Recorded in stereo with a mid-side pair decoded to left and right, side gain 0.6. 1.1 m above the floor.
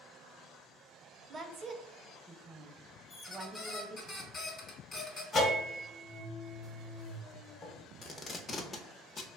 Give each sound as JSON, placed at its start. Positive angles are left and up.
{"t": 1.3, "sound": "a woman speaking", "azimuth_deg": -30, "distance_m": 0.5}
{"t": 3.1, "sound": "a squeak", "azimuth_deg": 25, "distance_m": 1.0}
{"t": 5.3, "sound": "a bell", "azimuth_deg": 30, "distance_m": 0.8}
{"t": 8.0, "sound": "tape being pulled", "azimuth_deg": 30, "distance_m": 0.6}